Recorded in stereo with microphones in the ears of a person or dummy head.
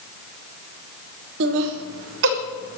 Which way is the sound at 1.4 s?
65° right (ahead or behind).